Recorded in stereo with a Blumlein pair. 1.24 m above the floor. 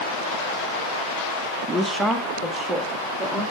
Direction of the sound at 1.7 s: 10° right.